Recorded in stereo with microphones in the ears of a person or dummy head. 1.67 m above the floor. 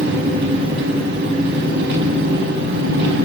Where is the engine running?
60° right (ahead or behind), 4.5 m.